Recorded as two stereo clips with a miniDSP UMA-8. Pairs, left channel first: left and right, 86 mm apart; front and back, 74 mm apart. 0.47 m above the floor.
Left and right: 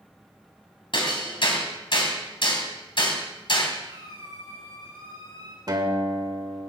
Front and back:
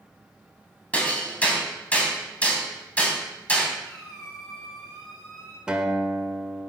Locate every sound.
0.9 s hammering: 70° left, 3 m
3.8 s a squeak: 85° right, 8.5 m
5.7 s a guitar: 105° right, 1.7 m